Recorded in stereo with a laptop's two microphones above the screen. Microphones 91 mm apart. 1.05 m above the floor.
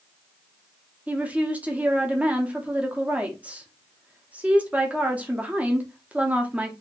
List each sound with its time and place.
1.1 s a woman speaking: 15° right (ahead or behind), 0.7 m